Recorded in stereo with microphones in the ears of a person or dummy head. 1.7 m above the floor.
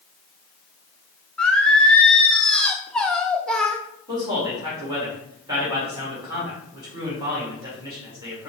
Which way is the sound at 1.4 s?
Centre (ahead or behind).